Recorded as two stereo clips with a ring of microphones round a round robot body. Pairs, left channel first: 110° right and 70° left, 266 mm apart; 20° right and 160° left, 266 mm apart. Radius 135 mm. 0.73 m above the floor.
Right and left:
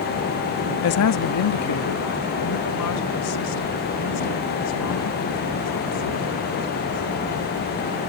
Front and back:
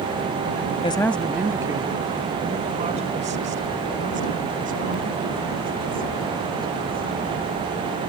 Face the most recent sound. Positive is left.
turn(degrees=-145)